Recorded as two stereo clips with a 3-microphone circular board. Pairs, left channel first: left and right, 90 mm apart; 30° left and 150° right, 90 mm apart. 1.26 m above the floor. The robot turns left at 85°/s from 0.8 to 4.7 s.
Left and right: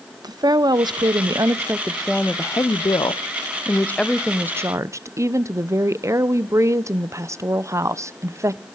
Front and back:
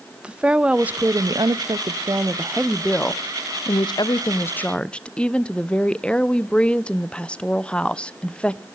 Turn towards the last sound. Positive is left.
turn(degrees=-45)